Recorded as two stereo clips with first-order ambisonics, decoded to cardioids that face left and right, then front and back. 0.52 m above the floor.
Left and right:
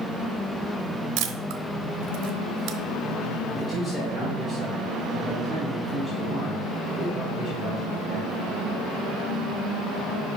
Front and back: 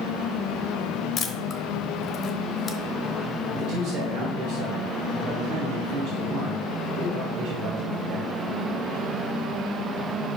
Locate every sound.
1.2 s a camera shutter: 65° right, 0.7 m
3.5 s a man speaking: 170° left, 1.6 m